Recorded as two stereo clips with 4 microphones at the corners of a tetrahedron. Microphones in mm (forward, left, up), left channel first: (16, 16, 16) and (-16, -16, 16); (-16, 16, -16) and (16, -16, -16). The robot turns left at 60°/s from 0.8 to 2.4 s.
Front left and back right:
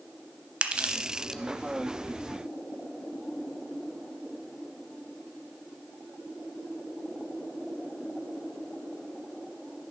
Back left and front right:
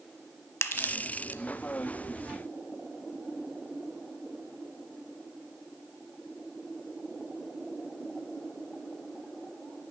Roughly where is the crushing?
Behind.